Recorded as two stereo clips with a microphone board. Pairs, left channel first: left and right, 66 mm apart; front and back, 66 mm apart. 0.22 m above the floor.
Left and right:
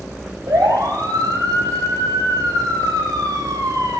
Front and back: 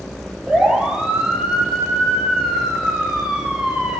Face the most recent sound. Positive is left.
turn(degrees=-110)